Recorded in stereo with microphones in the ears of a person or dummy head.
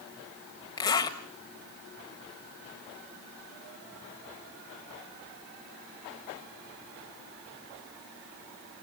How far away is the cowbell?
No cowbell in this recording.